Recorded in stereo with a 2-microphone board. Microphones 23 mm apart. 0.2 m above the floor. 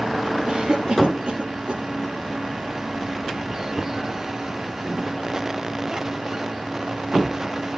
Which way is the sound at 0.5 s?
45° right (ahead or behind).